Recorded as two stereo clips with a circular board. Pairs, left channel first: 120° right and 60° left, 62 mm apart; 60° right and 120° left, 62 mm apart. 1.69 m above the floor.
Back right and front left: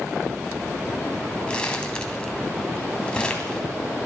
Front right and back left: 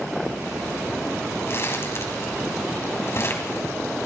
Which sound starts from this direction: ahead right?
Crumpling, at 1.5 s.